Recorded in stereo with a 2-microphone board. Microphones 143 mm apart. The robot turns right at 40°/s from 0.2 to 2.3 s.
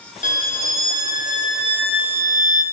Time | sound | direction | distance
0.2 | a violin | 70° left | 1.0 m